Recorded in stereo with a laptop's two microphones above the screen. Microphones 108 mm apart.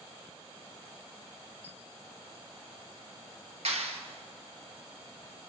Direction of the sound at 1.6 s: 70° left (ahead or behind).